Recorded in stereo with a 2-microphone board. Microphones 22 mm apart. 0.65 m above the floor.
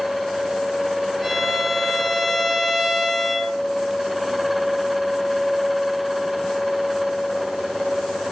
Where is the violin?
5° left (ahead or behind), 5 m.